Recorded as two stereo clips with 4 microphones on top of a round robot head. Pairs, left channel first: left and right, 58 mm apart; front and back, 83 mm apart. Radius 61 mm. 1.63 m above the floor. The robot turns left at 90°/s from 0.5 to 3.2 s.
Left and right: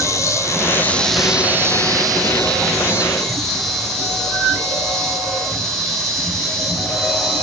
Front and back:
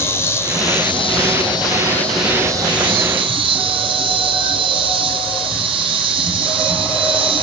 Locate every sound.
0.0 s an insect: 60° left, 1.4 m; by 7.4 s straight behind, 1.4 m